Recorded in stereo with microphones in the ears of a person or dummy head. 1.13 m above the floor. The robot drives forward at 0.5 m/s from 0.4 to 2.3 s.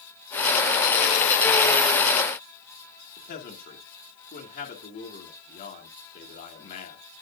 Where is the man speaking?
55° left (ahead or behind), 2.5 m.